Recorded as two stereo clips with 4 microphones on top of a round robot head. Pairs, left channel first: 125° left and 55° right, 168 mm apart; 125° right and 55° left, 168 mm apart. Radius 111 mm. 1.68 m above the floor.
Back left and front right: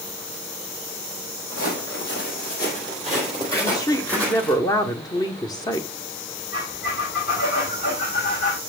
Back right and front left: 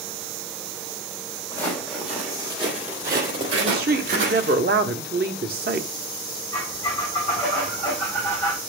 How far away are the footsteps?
About 2.5 m.